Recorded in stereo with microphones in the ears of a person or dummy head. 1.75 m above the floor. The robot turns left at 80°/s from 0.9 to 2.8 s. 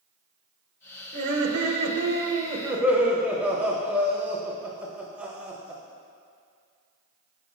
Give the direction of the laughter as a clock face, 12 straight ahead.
1 o'clock.